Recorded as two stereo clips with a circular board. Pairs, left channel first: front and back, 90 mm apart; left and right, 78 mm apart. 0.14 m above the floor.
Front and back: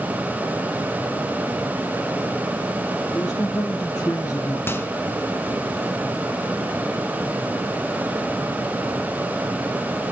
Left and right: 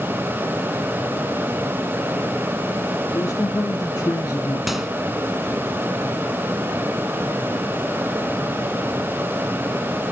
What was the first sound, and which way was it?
A man speaking, 50° left.